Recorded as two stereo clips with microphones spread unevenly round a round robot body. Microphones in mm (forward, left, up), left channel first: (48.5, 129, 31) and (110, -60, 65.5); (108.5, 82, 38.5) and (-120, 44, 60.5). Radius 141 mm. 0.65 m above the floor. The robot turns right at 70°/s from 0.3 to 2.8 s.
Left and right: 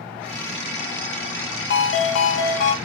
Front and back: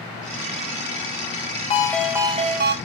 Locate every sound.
1.7 s a ringtone: 75° left, 0.5 m; by 2.8 s 150° left, 0.5 m